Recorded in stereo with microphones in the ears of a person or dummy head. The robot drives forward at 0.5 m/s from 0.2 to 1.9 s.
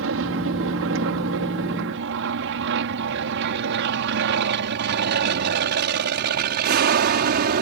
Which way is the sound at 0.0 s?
65° right (ahead or behind).